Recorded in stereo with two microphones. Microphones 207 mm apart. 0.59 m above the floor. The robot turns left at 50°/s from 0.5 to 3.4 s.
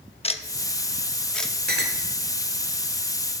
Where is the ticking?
30° left (ahead or behind), 0.8 m; by 1.5 s centre (ahead or behind), 0.8 m.